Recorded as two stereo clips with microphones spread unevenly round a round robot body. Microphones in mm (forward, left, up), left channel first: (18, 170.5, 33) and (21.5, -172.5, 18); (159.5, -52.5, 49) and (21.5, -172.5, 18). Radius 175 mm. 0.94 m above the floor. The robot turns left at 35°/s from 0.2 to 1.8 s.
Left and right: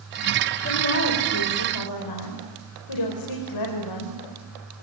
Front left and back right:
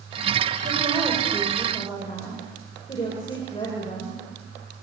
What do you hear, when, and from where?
0.6 s a woman speaking: 155° left, 5 m; by 4.7 s 115° left, 5 m